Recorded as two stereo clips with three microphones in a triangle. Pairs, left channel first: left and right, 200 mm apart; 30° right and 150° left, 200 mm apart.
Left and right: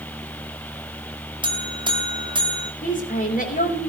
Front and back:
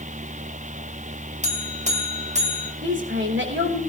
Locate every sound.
1.4 s a buzzer: 155° right, 1.7 m
2.8 s a woman speaking: 135° left, 3.5 m